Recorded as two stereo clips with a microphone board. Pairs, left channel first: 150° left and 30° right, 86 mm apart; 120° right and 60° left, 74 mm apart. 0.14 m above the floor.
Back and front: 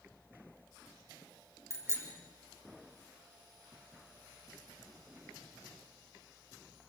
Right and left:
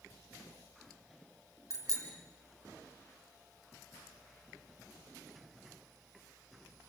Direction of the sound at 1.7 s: 20° left.